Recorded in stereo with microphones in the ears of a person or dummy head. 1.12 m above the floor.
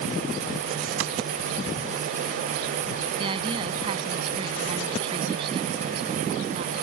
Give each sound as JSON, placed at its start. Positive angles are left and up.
{"t": 1.0, "sound": "a clap", "side_deg": -85}
{"t": 3.2, "sound": "a woman speaking", "side_deg": -35}